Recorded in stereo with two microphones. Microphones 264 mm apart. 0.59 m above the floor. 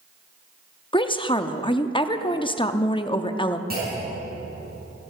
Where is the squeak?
No squeak in this recording.